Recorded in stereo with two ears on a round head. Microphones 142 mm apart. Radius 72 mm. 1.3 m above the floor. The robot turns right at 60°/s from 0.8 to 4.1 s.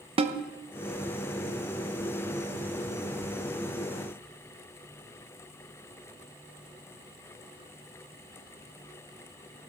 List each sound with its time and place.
0.2 s a snare drum: 35° right (ahead or behind), 0.9 m